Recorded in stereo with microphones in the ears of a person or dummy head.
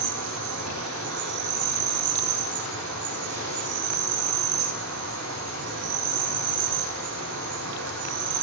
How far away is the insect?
About 10 m.